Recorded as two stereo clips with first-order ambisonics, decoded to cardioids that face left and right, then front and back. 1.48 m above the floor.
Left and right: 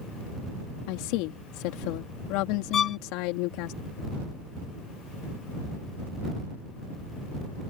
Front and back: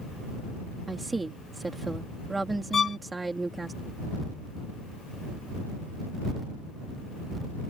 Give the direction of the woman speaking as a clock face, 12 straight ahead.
9 o'clock.